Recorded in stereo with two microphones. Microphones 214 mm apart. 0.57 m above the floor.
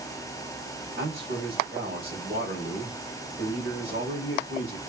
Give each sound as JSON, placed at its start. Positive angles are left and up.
{"t": 1.0, "sound": "a man speaking", "side_deg": -60, "distance_m": 2.0}